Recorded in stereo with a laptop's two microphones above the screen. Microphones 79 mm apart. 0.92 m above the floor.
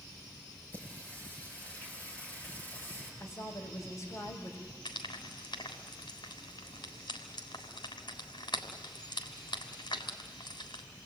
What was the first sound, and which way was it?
Singing, 25° left (ahead or behind).